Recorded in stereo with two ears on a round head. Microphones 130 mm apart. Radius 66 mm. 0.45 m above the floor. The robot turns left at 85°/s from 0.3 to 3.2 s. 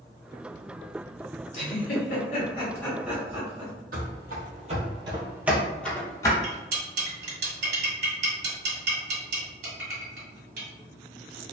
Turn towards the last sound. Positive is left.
turn(degrees=-65)  # may be behind; listen again after turning